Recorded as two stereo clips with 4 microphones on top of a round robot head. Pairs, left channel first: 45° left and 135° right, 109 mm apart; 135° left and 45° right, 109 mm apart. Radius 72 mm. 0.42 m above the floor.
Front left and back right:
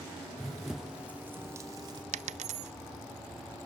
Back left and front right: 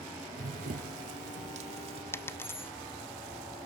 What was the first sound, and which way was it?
Running footsteps, 40° right.